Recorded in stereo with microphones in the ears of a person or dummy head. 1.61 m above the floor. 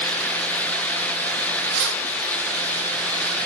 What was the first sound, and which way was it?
Keys jangling, 60° right (ahead or behind).